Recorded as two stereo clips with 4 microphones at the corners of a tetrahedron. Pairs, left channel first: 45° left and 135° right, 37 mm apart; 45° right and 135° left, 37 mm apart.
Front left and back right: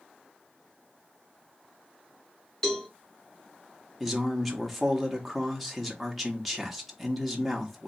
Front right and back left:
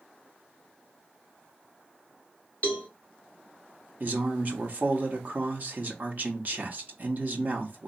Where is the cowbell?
20° right, 1.6 m.